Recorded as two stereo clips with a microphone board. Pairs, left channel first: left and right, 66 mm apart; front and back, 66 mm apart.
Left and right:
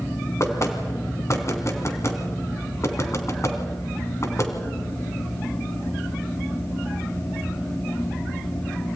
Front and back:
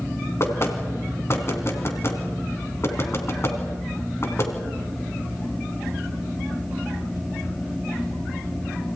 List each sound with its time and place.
0.4 s knocking: 45° left, 3 m